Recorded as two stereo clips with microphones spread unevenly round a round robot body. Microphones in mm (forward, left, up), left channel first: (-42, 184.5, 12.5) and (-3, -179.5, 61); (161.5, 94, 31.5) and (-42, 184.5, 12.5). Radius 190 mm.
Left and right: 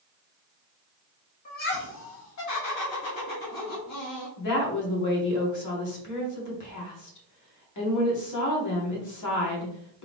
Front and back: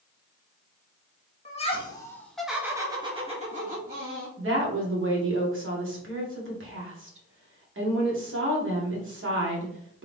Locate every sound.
1.4 s laughter: 35° left, 1.6 m; by 4.3 s 115° left, 2 m
4.4 s a woman speaking: 135° left, 2.0 m